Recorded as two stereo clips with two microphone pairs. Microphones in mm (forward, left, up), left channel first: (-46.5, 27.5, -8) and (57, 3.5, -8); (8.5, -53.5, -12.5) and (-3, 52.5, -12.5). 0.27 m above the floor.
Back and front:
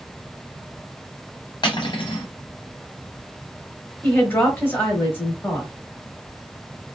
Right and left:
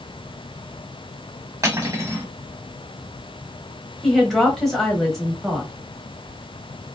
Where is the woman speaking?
165° right, 1.0 m.